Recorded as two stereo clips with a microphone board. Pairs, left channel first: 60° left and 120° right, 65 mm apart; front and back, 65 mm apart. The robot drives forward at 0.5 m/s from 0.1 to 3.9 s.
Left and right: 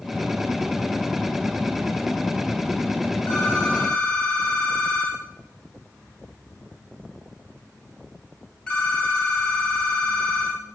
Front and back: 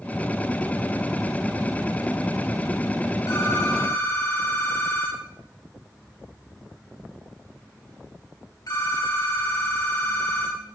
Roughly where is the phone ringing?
Ahead.